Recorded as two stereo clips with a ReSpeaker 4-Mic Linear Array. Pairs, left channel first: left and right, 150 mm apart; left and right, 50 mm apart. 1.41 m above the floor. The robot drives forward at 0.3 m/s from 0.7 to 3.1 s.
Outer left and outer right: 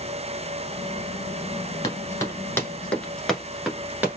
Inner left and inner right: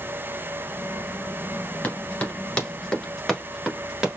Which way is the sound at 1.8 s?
25° left (ahead or behind).